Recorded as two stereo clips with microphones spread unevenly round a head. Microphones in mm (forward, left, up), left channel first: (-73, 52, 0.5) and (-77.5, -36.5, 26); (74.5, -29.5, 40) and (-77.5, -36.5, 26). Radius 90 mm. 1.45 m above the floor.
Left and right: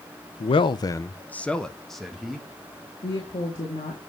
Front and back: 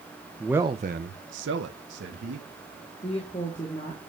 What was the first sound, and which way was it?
A man speaking, 80° left.